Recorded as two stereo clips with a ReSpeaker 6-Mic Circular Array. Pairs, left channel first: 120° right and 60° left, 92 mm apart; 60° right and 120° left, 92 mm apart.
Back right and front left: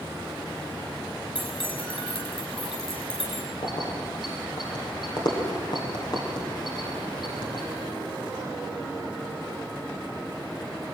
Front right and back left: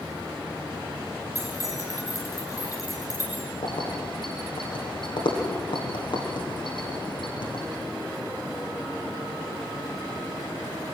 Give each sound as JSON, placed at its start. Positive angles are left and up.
{"t": 1.4, "sound": "keys jangling", "azimuth_deg": -115, "distance_m": 6.0}
{"t": 3.6, "sound": "keys jangling", "azimuth_deg": -85, "distance_m": 6.5}